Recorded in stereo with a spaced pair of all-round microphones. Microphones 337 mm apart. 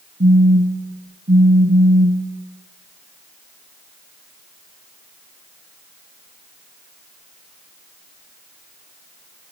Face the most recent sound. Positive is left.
turn(degrees=-30)  # may be behind; listen again after turning